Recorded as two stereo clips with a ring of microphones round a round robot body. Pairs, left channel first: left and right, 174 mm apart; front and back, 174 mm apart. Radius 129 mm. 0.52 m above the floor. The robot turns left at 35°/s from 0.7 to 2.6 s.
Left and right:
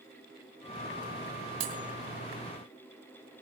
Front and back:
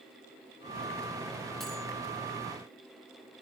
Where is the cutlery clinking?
90° right, 3 m; by 1.8 s 95° right, 3 m.